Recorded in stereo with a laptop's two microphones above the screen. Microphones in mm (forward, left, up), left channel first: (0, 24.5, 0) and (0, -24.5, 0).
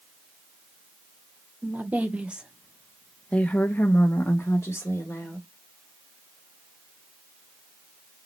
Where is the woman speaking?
35° right (ahead or behind), 1.0 m; by 5.4 s 75° left (ahead or behind), 1.3 m.